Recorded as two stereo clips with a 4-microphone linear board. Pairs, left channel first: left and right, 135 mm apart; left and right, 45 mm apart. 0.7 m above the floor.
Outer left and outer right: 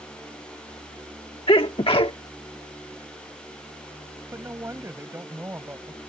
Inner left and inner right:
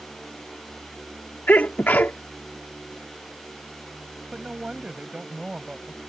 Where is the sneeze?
45° left (ahead or behind).